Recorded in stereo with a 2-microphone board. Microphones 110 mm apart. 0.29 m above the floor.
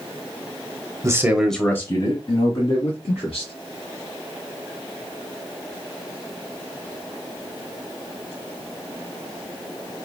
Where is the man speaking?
30° right (ahead or behind), 1.1 m; by 3.5 s 55° left (ahead or behind), 3.5 m.